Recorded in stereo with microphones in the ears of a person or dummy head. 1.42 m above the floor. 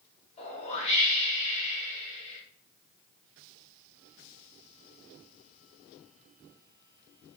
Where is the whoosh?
35° left (ahead or behind), 0.8 m.